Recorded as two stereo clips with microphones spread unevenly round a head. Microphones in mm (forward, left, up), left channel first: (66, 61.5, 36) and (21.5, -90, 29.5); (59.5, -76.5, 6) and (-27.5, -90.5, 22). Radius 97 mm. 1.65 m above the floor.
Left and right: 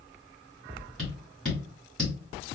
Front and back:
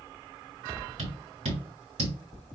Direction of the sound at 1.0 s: 160° left.